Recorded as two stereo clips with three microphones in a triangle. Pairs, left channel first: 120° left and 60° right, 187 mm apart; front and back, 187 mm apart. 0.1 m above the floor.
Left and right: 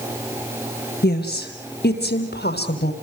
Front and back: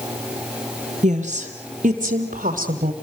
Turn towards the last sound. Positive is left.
turn(degrees=140)